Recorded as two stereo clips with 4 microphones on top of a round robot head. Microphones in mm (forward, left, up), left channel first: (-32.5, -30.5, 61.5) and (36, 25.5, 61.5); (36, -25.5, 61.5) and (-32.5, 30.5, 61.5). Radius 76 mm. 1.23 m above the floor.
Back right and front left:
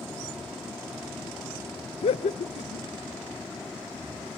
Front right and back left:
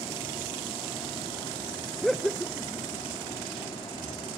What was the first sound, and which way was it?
Laughter, 130° right.